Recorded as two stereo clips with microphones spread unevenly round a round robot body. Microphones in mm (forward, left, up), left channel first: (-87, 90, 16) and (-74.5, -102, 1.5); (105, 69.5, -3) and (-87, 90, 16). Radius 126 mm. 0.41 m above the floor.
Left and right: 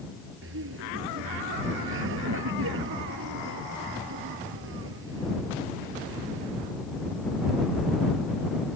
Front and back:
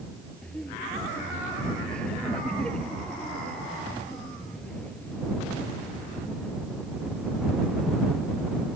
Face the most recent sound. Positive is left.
turn(degrees=-95)